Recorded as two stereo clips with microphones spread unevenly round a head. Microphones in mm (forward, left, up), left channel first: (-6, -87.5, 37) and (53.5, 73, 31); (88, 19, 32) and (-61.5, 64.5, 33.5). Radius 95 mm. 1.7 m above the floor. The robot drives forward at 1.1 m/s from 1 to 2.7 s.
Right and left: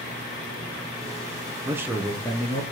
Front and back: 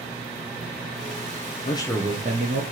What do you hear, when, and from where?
1.6 s a man speaking: 5° left, 0.6 m; by 2.6 s straight behind, 0.9 m